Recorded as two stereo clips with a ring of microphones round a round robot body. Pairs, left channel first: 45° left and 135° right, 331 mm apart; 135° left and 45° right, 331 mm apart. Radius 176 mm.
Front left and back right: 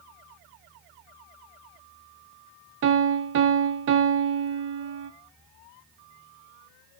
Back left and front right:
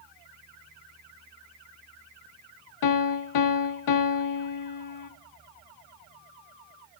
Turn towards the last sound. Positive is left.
turn(degrees=170)